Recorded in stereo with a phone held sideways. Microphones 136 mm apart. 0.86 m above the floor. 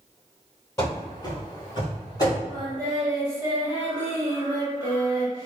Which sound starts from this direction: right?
Singing, at 2.5 s.